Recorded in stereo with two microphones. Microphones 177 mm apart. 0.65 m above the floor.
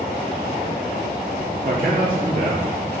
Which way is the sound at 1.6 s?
55° right (ahead or behind).